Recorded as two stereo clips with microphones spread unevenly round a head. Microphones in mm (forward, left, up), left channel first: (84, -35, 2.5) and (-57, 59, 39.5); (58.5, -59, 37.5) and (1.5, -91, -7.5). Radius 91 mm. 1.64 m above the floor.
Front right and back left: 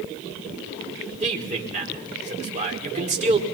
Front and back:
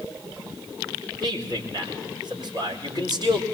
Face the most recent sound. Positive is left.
turn(degrees=95)